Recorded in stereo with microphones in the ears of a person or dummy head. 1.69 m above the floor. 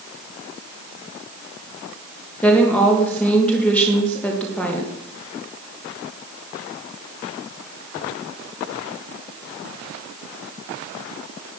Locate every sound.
2.4 s a woman speaking: 10° left (ahead or behind), 2.5 m